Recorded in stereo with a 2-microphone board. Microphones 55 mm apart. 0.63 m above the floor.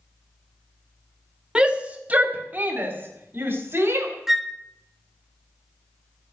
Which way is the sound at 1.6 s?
20° right (ahead or behind).